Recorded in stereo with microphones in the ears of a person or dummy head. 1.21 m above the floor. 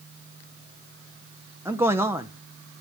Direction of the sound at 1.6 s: 10° right (ahead or behind).